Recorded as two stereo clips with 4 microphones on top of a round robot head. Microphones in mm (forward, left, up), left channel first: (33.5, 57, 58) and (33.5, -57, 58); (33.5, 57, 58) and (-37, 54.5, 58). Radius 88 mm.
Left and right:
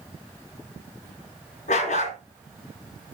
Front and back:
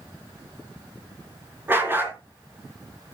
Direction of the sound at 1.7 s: 120° left.